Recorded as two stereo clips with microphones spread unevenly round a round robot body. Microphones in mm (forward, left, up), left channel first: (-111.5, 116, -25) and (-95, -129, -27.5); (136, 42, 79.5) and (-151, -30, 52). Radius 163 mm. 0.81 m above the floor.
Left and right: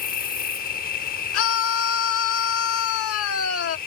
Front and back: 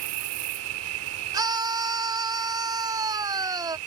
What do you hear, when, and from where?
0.0 s an insect: 150° left
1.3 s a scream: 120° left